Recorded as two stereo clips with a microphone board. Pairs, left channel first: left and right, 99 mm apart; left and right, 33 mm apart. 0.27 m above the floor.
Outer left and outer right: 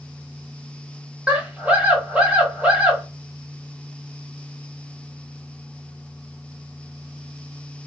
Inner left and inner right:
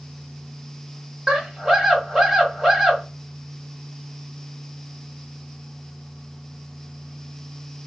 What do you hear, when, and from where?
1.3 s a scream: 15° right (ahead or behind), 1.2 m